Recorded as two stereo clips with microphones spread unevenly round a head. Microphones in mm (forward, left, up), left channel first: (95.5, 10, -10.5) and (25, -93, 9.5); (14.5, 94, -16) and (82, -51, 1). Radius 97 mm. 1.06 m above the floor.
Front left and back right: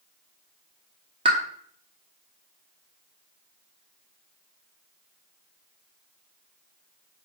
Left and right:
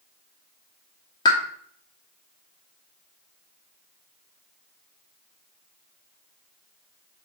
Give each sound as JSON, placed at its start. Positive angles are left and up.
{"t": 1.2, "sound": "a pop", "azimuth_deg": -175, "distance_m": 0.9}